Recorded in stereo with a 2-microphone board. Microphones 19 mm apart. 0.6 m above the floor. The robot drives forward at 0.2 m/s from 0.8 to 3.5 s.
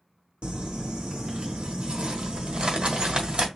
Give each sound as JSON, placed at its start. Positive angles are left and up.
{"t": 0.4, "sound": "crumpling", "side_deg": -75, "distance_m": 1.2}